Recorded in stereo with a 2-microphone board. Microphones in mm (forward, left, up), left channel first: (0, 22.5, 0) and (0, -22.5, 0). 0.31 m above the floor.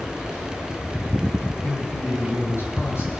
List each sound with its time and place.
1.6 s a man speaking: 70° left (ahead or behind), 6.5 m